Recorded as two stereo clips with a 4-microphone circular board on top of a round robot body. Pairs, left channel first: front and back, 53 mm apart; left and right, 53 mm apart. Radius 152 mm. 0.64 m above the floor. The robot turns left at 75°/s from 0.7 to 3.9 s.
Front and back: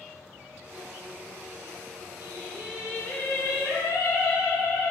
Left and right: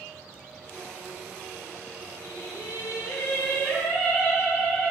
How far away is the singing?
About 0.6 m.